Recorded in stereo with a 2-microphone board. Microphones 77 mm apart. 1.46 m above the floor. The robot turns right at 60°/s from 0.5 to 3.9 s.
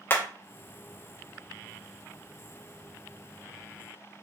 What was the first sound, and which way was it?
Hammering, 25° left (ahead or behind).